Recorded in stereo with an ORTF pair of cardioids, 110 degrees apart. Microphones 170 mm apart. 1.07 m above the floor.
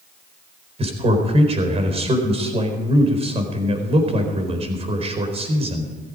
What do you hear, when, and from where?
0.8 s a man speaking: 35° right, 4.5 m